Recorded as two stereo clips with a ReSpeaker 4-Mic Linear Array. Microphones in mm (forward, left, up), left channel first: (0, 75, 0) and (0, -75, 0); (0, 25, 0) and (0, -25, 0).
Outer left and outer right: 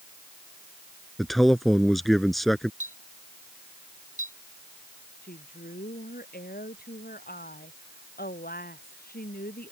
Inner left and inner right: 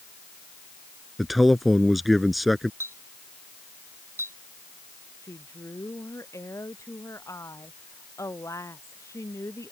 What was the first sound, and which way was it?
A man speaking, centre (ahead or behind).